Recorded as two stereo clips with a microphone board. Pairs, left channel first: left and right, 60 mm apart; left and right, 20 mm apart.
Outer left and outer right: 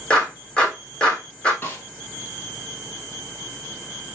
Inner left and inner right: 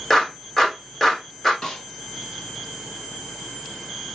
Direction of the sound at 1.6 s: 30° left (ahead or behind).